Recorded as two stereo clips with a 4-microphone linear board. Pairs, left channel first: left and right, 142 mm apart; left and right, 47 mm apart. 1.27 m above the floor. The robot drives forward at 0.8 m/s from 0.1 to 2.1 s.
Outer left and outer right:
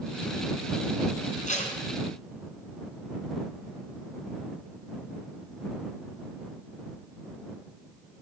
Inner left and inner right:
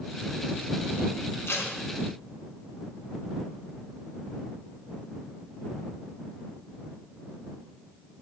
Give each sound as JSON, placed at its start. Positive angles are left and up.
{"t": 1.5, "sound": "tape being pulled", "side_deg": 60, "distance_m": 3.0}